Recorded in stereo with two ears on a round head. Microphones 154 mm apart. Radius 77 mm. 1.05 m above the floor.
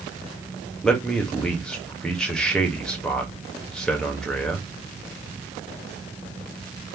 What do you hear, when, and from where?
0.8 s a man speaking: 5° left (ahead or behind), 1.2 m